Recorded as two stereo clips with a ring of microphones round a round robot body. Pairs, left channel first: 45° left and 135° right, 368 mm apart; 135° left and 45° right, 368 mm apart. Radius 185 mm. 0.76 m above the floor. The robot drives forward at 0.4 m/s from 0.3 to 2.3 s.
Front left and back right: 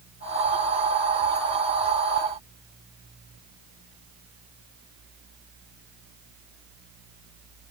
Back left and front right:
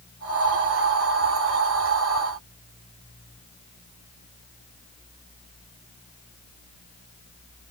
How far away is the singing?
I don't hear singing.